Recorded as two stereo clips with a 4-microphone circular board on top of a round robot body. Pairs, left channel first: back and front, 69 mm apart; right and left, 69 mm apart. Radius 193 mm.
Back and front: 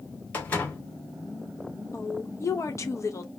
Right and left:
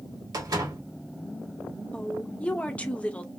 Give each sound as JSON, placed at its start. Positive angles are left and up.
{"t": 0.3, "sound": "a door slam", "azimuth_deg": 115, "distance_m": 2.0}
{"t": 1.9, "sound": "a woman speaking", "azimuth_deg": -155, "distance_m": 1.0}